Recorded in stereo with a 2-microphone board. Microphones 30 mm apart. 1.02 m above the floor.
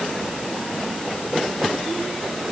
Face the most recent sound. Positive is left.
No sound to turn to.